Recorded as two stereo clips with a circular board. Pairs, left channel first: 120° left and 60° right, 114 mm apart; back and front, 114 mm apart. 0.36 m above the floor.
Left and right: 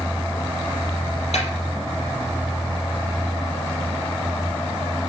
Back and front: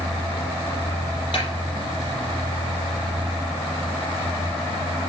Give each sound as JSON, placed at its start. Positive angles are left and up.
{"t": 1.3, "sound": "a snare drum", "azimuth_deg": 145, "distance_m": 5.0}